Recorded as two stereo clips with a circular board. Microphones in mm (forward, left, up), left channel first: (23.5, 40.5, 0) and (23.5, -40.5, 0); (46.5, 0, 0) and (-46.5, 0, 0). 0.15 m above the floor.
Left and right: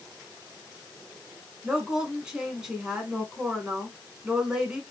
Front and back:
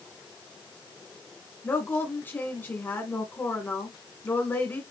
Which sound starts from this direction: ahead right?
A woman speaking, at 1.6 s.